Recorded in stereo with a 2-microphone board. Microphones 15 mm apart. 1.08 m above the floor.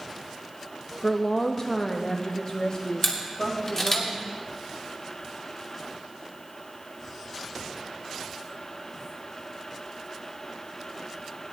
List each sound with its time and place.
1.0 s a woman speaking: 30° left (ahead or behind), 1.1 m; by 4.0 s 40° left (ahead or behind), 2.5 m
3.0 s a camera shutter: 30° left (ahead or behind), 3 m